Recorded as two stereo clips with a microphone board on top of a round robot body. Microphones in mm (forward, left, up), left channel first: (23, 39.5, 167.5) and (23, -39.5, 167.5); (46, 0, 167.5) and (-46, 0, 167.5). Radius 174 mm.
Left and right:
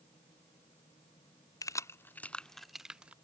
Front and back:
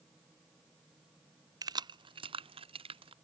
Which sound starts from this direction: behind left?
Keys jangling, at 1.6 s.